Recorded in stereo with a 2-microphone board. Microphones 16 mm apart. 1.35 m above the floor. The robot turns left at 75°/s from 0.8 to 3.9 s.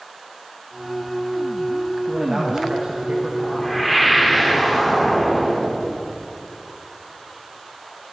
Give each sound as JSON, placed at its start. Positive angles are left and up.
{"t": 2.1, "sound": "a man speaking", "azimuth_deg": -10, "distance_m": 1.1}
{"t": 3.4, "sound": "a whoosh", "azimuth_deg": 30, "distance_m": 1.1}